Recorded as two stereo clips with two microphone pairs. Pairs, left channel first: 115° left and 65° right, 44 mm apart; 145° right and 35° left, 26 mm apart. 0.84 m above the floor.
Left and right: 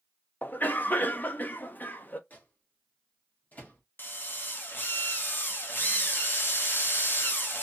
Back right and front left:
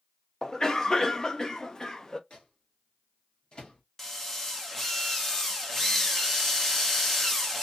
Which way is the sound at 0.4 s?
150° left.